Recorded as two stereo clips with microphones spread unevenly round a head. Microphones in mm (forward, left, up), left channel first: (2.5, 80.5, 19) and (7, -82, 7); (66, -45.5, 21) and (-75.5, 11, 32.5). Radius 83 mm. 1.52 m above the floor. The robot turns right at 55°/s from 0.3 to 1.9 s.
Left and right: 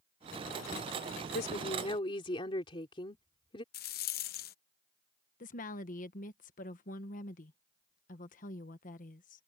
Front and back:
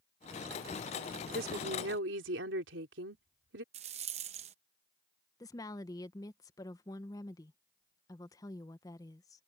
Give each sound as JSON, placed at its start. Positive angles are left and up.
{"t": 1.3, "sound": "a woman speaking", "azimuth_deg": 120}
{"t": 3.7, "sound": "a rattle", "azimuth_deg": 110}
{"t": 5.4, "sound": "a woman speaking", "azimuth_deg": 50}